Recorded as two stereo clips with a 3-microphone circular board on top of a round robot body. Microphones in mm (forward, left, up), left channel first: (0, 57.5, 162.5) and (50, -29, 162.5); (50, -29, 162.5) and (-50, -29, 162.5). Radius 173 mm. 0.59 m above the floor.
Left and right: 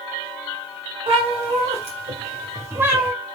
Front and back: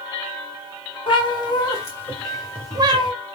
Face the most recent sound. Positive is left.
turn(degrees=-150)